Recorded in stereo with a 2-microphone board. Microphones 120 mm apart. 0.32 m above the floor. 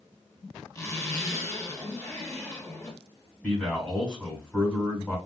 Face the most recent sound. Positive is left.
turn(degrees=10)  # may be behind; listen again after turning